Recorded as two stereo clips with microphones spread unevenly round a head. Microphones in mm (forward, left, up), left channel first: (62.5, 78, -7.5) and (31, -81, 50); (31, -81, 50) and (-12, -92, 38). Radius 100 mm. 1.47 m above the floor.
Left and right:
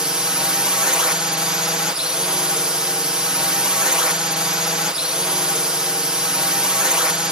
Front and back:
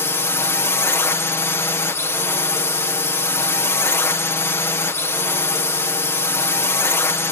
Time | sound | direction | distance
0.0 | a drone | straight ahead | ?